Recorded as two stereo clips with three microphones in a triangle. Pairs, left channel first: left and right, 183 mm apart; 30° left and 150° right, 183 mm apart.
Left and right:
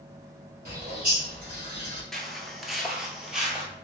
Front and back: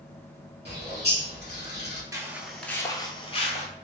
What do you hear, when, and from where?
0.7 s a bird: 125° right, 1.8 m
2.1 s footsteps: 175° left, 0.6 m; by 3.7 s 5° right, 0.9 m